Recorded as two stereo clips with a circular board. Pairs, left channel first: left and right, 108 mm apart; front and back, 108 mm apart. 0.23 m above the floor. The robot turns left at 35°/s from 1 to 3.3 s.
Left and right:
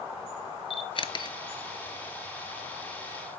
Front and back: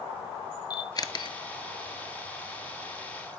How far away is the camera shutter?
About 0.5 m.